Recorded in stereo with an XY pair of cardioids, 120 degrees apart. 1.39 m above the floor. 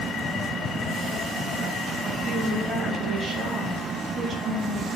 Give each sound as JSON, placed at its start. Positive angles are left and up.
{"t": 2.3, "sound": "a woman speaking", "azimuth_deg": -35, "distance_m": 1.9}